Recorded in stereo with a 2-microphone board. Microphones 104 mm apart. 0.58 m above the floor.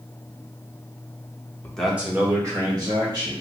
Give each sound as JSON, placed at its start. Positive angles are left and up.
{"t": 1.6, "sound": "a man speaking", "side_deg": 15, "distance_m": 0.7}